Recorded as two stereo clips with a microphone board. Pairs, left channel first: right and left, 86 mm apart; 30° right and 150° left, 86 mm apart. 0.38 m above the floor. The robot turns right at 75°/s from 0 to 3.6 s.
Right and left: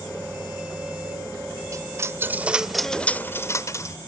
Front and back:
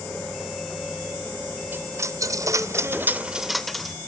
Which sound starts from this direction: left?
A dropped coin, at 1.7 s.